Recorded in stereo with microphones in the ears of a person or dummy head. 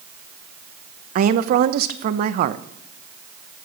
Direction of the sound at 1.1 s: 50° right (ahead or behind).